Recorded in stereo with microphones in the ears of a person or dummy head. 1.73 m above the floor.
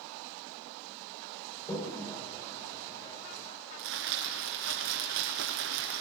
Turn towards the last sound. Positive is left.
turn(degrees=-70)  # may be behind; listen again after turning